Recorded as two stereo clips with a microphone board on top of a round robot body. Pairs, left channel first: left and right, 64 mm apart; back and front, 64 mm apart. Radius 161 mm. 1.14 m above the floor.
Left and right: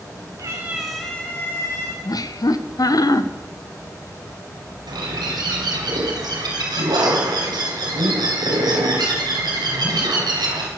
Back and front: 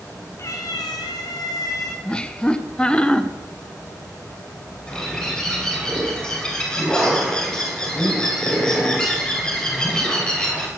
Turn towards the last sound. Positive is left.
turn(degrees=-100)